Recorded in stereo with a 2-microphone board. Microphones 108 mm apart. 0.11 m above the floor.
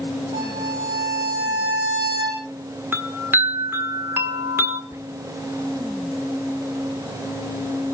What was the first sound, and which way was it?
A violin, 45° right (ahead or behind).